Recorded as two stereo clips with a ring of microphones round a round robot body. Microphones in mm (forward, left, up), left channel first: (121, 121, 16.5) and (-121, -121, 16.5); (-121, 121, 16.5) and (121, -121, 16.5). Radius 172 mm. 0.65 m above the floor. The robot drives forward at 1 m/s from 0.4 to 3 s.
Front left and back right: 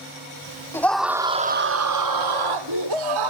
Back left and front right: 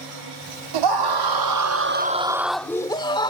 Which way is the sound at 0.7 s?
40° right.